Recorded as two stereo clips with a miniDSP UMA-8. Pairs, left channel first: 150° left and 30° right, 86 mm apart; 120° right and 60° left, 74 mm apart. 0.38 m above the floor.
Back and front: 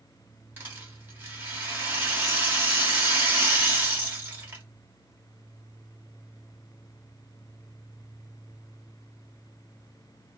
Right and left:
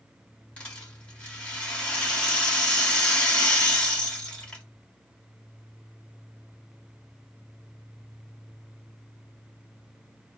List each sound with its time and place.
0.6 s a rattle: 65° right, 1.1 m